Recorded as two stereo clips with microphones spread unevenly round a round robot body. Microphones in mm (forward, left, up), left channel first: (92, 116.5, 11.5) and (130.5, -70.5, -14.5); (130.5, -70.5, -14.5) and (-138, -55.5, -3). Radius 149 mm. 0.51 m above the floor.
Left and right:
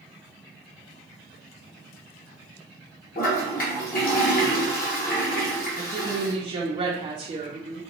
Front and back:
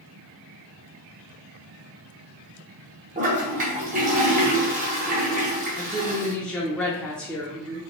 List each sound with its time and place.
3.1 s a toilet flushing: 125° left, 0.9 m
5.8 s a woman speaking: 80° right, 0.7 m